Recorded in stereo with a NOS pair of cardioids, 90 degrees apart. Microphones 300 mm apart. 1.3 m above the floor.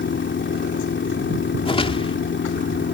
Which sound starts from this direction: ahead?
A whoosh, at 1.6 s.